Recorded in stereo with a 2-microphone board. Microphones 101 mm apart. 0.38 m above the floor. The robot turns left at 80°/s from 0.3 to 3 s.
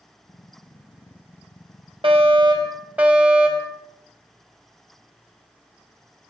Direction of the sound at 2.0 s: 90° right.